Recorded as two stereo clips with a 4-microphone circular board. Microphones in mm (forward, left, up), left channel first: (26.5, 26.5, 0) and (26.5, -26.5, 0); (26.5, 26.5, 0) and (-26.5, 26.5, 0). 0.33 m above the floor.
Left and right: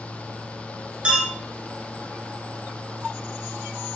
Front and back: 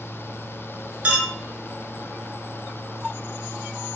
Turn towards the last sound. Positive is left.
turn(degrees=-140)